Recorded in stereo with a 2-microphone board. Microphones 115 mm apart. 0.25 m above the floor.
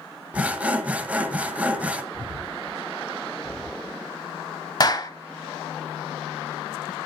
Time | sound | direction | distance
0.3 | sawing | 15° right (ahead or behind) | 0.9 m
2.1 | breathing | 15° left (ahead or behind) | 8.5 m
4.8 | a clap | 40° left (ahead or behind) | 0.9 m